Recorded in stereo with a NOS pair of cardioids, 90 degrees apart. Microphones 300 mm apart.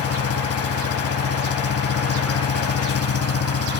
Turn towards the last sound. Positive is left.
turn(degrees=50)